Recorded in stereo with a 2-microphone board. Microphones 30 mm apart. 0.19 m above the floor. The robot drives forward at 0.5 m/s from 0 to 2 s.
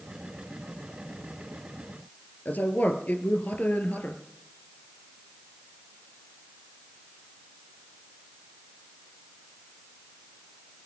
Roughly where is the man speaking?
Left.